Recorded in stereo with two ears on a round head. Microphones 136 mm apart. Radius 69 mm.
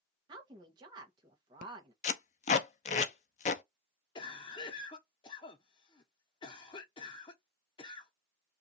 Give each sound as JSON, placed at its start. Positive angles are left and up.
{"t": 0.3, "sound": "a woman speaking", "side_deg": -30, "distance_m": 0.9}
{"t": 2.0, "sound": "tape being pulled", "side_deg": 50, "distance_m": 0.5}
{"t": 4.2, "sound": "a cough", "side_deg": 30, "distance_m": 0.5}